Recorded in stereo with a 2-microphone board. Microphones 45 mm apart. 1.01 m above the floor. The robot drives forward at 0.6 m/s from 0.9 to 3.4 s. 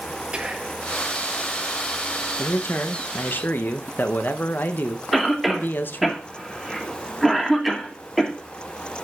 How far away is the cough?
About 2.5 m.